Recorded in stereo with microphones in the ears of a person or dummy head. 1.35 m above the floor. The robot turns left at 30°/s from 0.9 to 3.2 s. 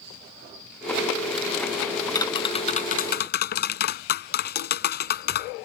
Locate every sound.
2.1 s tapping: 160° left; by 5.5 s 130° left